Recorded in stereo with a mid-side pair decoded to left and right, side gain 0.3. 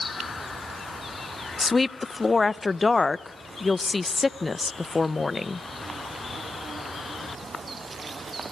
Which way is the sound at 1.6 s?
35° left.